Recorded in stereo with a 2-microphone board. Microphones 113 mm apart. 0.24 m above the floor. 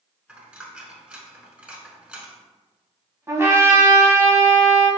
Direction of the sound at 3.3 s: 25° right (ahead or behind).